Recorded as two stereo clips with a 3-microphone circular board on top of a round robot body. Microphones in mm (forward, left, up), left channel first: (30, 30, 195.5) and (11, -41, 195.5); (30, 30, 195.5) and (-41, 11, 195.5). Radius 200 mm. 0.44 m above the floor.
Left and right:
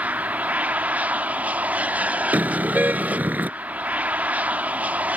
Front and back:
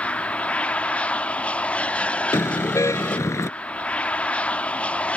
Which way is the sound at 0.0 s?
45° right.